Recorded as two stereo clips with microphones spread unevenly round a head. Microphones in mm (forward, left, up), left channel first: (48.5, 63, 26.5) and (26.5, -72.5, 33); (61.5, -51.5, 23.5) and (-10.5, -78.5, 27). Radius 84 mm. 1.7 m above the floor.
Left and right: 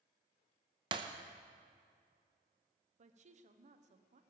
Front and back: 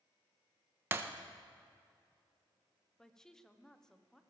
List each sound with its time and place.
0.9 s breaking glass: 130° right, 0.9 m
3.0 s a woman speaking: 60° right, 1.2 m